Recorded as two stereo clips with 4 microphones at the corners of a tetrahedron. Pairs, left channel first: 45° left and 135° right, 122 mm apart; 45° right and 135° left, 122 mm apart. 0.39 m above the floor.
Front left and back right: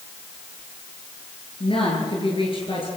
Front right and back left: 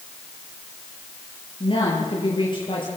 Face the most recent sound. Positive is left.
turn(degrees=0)